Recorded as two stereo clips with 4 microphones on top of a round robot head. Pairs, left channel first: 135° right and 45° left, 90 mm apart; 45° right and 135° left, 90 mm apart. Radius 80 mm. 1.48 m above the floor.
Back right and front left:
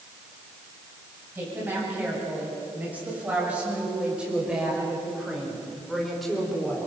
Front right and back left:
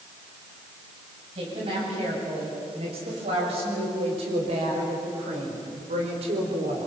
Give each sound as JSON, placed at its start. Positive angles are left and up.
{"t": 1.4, "sound": "a woman speaking", "azimuth_deg": 115, "distance_m": 8.5}